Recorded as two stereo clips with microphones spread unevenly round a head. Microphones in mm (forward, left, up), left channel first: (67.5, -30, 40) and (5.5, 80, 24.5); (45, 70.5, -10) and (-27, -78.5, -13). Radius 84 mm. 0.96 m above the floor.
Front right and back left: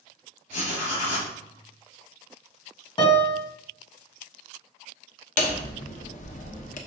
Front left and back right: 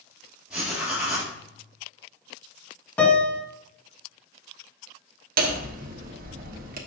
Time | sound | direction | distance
0.5 | writing | 30° right | 4 m
3.0 | a piano | 15° right | 1.7 m
5.4 | hammering | 85° right | 1.1 m